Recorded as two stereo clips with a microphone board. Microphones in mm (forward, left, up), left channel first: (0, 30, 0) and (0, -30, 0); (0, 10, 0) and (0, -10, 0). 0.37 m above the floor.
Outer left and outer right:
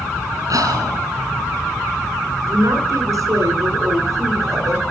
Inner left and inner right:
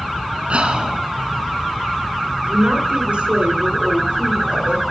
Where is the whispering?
75° right (ahead or behind), 3 m.